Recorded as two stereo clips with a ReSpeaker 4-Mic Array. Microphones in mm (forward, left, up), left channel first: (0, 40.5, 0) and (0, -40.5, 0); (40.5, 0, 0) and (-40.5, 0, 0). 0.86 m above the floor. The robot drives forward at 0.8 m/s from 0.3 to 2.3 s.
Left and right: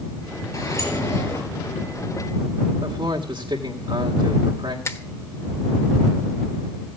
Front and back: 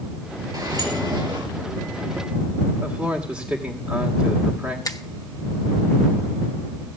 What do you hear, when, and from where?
0.5 s a sliding door: 140° left, 3.5 m; by 1.4 s 145° left, 4 m
2.8 s a man speaking: 110° right, 2 m
4.8 s a finger snap: 40° left, 1.1 m